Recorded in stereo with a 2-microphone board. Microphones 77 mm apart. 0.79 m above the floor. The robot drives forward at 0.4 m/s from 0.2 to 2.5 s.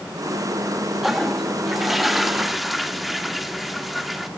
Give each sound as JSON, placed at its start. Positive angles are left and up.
{"t": 1.0, "sound": "a toilet flushing", "side_deg": -5, "distance_m": 1.0}